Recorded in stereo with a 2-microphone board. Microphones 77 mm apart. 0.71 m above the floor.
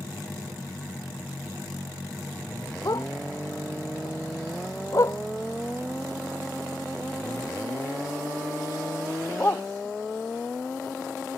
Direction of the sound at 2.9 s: 55° left (ahead or behind).